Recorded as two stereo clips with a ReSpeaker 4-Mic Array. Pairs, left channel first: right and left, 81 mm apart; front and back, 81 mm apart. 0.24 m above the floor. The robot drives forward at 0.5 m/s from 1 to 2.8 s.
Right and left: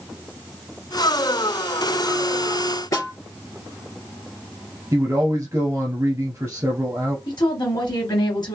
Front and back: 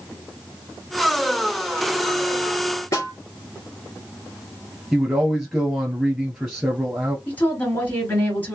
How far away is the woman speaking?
About 2.5 m.